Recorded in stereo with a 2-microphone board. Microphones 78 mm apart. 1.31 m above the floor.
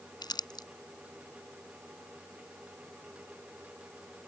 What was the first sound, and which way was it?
Crumpling, 70° left (ahead or behind).